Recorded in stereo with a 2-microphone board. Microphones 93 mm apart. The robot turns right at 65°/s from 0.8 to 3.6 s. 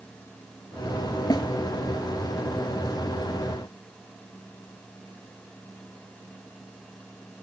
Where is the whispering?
No whispering in this recording.